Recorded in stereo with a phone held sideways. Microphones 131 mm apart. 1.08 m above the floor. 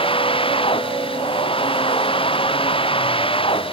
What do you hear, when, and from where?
0.0 s a machine running: 40° left (ahead or behind)